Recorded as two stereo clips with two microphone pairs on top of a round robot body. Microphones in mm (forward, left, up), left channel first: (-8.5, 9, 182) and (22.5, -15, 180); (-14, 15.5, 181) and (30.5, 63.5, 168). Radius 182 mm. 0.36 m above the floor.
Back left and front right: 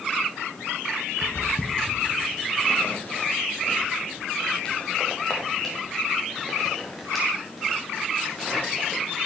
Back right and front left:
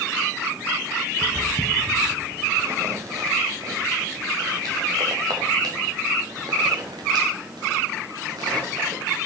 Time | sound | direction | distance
1.2 | footsteps | 110° left | 3 m